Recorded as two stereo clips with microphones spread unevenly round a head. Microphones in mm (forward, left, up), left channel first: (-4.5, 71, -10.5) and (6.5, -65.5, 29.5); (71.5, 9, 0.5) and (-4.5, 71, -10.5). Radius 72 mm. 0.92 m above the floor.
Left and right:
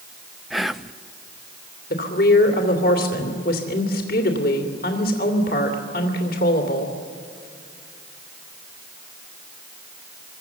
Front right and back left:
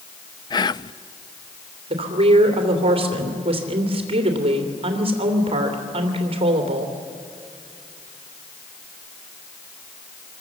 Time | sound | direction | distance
0.5 | whispering | 10° left | 0.6 m
1.9 | a woman speaking | 115° left | 2.5 m